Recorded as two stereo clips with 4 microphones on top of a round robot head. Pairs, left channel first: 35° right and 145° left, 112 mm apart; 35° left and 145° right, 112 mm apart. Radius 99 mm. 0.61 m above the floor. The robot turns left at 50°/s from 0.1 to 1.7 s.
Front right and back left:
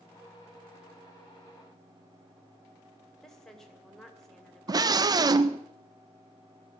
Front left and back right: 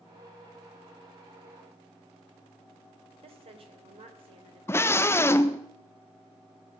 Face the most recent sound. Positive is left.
turn(degrees=100)